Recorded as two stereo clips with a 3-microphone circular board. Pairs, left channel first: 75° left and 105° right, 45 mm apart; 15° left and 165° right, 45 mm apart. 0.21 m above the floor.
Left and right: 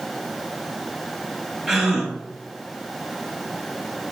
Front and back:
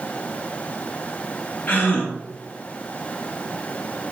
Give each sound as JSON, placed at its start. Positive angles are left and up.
{"t": 1.7, "sound": "a gasp", "azimuth_deg": -15, "distance_m": 0.9}